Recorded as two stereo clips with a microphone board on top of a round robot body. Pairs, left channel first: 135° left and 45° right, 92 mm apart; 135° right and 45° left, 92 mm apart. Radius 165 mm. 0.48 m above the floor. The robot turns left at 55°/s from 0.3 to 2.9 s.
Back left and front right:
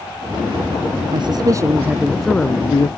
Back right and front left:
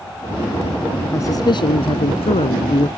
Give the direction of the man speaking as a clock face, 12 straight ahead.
3 o'clock.